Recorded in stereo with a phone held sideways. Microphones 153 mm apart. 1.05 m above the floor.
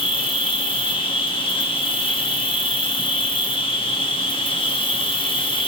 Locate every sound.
0.0 s an insect: 35° left (ahead or behind), 0.8 m